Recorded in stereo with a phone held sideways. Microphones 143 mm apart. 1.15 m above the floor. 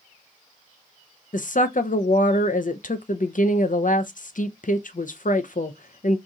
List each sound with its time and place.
1.3 s a woman speaking: 65° left (ahead or behind), 0.5 m